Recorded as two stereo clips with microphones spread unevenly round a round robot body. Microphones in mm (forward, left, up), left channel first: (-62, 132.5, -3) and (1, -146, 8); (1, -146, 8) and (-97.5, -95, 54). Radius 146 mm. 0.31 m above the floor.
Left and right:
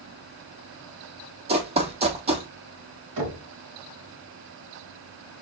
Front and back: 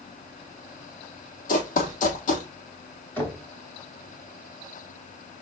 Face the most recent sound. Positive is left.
turn(degrees=-80)